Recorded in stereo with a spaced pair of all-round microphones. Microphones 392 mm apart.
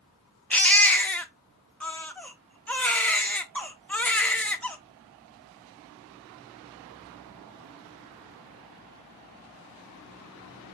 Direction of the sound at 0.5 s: 5° left (ahead or behind).